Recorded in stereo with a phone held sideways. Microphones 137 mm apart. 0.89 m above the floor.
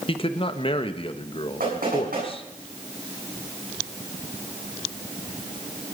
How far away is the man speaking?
About 1.1 m.